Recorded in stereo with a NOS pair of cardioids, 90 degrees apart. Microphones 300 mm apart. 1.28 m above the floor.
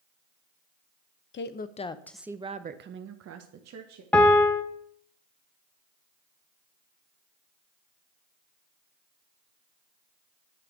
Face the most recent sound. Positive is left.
turn(degrees=5)